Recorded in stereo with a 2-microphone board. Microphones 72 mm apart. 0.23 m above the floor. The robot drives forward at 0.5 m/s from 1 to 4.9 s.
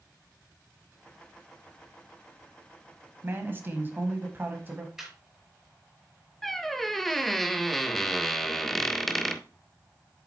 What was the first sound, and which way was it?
A man speaking, 30° right (ahead or behind).